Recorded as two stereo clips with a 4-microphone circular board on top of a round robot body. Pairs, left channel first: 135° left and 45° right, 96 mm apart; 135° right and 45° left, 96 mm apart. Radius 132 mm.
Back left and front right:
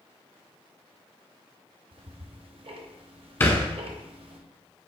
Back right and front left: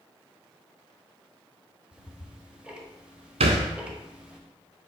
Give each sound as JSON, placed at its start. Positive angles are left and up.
{"t": 1.9, "sound": "ticking", "azimuth_deg": -35, "distance_m": 1.0}
{"t": 3.4, "sound": "a thud", "azimuth_deg": 65, "distance_m": 0.6}